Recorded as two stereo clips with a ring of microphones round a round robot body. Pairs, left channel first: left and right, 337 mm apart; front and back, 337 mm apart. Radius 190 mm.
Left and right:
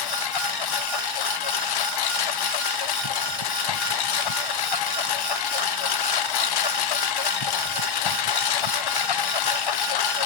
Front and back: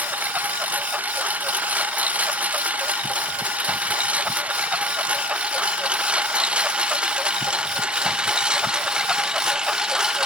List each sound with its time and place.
0.0 s a lawn mower: 95° left; by 10.3 s 90° left